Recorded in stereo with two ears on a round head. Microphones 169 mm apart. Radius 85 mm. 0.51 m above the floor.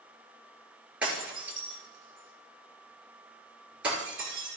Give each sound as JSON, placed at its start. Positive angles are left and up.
{"t": 1.0, "sound": "breaking glass", "side_deg": -5, "distance_m": 4.5}